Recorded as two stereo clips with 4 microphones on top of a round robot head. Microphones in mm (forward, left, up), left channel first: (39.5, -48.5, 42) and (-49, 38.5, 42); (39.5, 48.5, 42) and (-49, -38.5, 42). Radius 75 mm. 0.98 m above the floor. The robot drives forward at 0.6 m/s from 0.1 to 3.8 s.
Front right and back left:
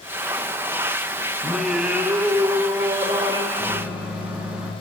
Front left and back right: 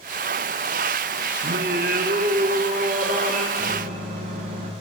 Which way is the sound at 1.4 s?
125° right.